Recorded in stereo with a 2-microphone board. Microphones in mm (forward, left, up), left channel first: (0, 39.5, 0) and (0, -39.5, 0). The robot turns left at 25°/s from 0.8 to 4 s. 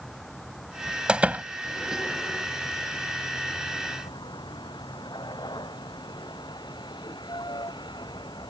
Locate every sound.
0.0 s a vehicle: 175° left; by 8.5 s 95° left
1.1 s a door slam: 15° right (ahead or behind); by 1.4 s 20° right (ahead or behind)